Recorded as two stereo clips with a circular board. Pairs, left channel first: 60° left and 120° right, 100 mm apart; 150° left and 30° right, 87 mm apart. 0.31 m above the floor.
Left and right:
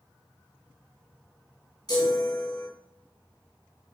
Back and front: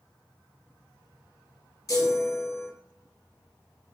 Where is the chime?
105° left, 3 m.